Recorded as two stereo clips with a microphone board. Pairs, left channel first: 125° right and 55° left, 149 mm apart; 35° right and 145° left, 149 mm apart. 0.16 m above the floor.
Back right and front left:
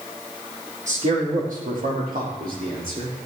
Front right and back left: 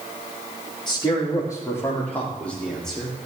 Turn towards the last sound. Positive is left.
turn(degrees=55)